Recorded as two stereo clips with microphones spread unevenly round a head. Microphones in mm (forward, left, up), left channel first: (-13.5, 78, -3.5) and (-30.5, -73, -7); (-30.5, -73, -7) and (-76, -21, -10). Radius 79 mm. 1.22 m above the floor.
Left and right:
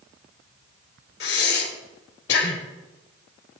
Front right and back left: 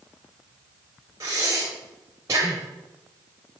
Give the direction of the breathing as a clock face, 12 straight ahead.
10 o'clock.